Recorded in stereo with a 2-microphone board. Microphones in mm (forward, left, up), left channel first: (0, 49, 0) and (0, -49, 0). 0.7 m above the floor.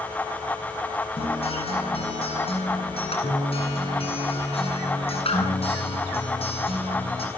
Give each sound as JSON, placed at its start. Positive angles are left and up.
{"t": 1.2, "sound": "a guitar", "side_deg": 75, "distance_m": 9.0}